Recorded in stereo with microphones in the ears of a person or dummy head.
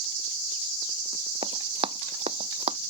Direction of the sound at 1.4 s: 30° right (ahead or behind).